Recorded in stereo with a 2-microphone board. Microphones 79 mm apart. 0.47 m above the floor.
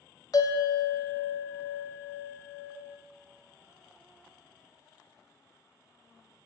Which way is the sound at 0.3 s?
55° left (ahead or behind).